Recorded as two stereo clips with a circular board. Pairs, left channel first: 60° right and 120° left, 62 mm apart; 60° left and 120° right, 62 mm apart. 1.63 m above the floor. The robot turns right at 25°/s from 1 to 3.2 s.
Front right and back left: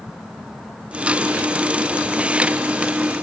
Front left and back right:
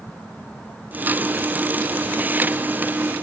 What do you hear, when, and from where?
Only background noise.